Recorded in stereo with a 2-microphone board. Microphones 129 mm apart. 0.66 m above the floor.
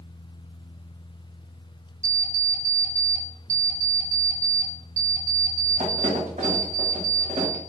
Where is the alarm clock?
75° right (ahead or behind), 1.4 m.